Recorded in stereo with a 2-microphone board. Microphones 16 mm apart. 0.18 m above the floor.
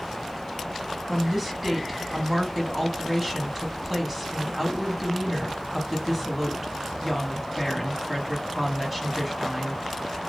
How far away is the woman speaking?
About 1.0 m.